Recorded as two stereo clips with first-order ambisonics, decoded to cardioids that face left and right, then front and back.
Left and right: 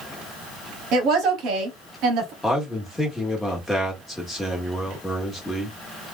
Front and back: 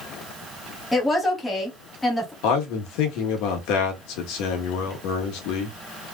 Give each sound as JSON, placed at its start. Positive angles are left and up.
{"t": 0.9, "sound": "a woman speaking", "azimuth_deg": -85, "distance_m": 1.1}
{"t": 2.4, "sound": "a man speaking", "azimuth_deg": 5, "distance_m": 1.3}